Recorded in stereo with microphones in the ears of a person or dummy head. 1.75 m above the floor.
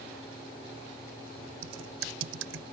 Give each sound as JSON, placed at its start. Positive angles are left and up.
{"t": 1.6, "sound": "typing on a keyboard", "side_deg": -85}